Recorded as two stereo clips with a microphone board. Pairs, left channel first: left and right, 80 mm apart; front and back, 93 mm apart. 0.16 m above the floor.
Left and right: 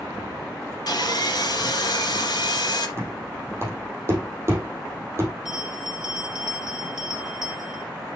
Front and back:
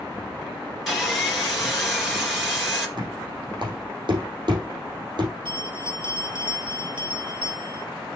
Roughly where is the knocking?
Behind right.